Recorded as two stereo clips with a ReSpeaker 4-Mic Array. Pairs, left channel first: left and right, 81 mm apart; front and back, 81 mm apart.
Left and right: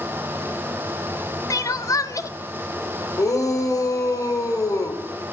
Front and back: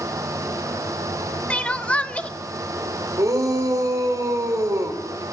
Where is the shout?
135° left, 3 m.